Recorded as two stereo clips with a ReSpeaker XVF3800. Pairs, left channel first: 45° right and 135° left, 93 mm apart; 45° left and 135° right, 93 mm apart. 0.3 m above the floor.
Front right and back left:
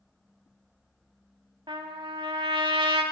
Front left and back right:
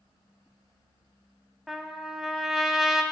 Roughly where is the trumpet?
Behind left.